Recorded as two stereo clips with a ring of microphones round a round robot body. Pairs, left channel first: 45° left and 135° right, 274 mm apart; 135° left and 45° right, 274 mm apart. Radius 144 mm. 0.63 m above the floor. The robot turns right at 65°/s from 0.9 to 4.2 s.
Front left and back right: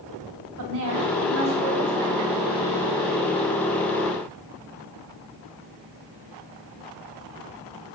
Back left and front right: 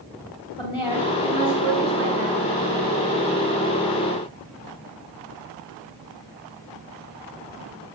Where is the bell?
I don't hear a bell.